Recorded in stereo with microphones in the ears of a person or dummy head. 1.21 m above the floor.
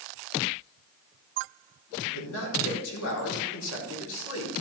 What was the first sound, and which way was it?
A man speaking, 70° left (ahead or behind).